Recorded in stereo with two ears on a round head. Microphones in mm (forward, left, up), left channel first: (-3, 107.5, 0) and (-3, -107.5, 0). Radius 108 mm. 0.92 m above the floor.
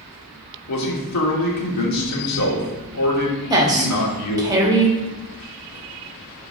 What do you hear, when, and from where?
0.7 s a man speaking: 80° left, 2 m
3.5 s a woman speaking: 15° right (ahead or behind), 1.5 m